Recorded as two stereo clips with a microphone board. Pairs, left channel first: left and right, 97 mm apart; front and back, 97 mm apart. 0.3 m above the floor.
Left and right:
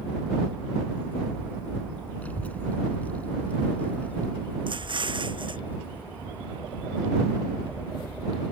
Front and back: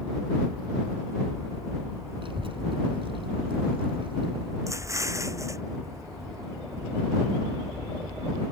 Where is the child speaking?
165° left.